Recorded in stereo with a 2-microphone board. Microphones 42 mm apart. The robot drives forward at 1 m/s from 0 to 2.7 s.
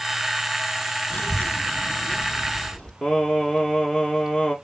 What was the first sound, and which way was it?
A child speaking, 50° left (ahead or behind).